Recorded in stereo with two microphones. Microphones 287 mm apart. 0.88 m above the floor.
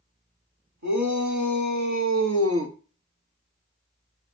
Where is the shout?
75° right (ahead or behind), 1.9 m; by 2.8 s 40° right (ahead or behind), 0.9 m.